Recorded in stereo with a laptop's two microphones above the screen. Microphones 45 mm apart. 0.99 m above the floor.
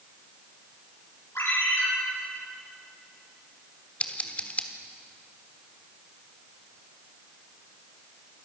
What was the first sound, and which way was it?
A ringtone, 70° left (ahead or behind).